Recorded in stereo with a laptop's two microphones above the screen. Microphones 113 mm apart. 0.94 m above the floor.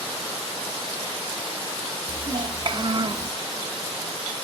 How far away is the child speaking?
About 1.9 m.